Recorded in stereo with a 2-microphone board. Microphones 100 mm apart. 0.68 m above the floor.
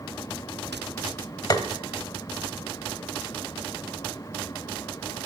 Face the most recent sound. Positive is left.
turn(degrees=40)  # may be behind; listen again after turning